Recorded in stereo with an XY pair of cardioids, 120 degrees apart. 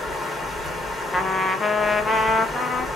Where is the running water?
15° left, 1.4 m.